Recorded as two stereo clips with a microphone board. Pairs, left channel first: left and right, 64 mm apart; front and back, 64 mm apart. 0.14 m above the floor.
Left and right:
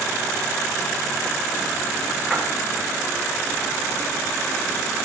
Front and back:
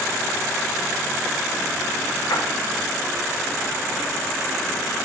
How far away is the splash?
About 8.5 m.